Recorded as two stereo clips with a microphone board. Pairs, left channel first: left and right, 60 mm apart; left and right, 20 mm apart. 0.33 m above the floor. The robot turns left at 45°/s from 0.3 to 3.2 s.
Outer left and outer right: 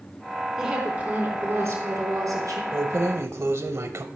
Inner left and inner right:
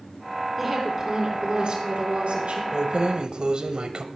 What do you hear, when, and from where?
0.6 s a woman speaking: 10° right, 3.5 m; by 2.6 s 105° right, 3.5 m
2.7 s keys jangling: 50° right (ahead or behind), 0.8 m